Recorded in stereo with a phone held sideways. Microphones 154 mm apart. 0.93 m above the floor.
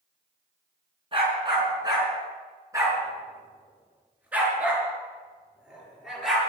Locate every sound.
1.1 s a dog barking: 30° right (ahead or behind), 4.5 m; by 6.4 s centre (ahead or behind), 6.5 m